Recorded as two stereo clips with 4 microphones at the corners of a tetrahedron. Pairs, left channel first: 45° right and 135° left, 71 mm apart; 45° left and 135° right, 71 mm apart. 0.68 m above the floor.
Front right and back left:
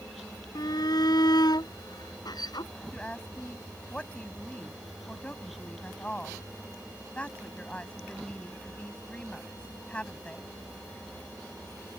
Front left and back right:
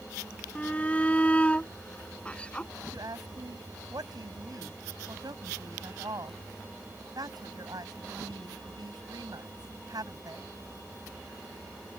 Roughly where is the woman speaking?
Behind right.